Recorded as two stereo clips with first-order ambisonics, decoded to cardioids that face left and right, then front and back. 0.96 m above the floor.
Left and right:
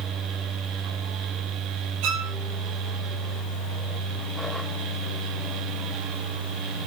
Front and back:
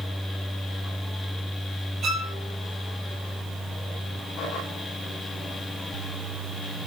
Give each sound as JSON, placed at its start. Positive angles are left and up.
{"t": 2.0, "sound": "a violin", "azimuth_deg": -115, "distance_m": 3.0}